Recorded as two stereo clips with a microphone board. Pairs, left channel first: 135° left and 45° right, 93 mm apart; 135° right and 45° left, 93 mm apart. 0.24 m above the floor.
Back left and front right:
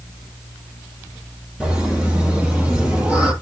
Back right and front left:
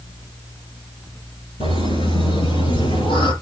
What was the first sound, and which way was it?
Laughter, 125° right.